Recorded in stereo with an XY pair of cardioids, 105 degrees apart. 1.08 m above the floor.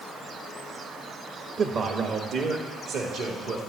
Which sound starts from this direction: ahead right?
A man speaking, at 1.6 s.